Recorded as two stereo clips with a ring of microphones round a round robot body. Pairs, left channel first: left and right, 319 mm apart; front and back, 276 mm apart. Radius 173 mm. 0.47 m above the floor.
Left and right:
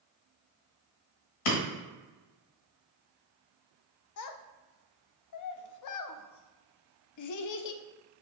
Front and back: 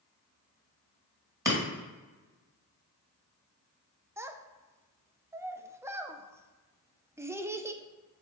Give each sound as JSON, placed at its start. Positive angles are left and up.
{"t": 1.4, "sound": "breaking glass", "azimuth_deg": 100, "distance_m": 1.9}
{"t": 4.2, "sound": "a child speaking", "azimuth_deg": 100, "distance_m": 0.5}